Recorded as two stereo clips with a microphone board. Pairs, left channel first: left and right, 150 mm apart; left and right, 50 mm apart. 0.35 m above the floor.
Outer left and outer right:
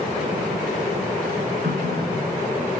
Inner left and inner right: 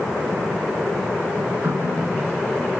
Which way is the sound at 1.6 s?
75° right (ahead or behind).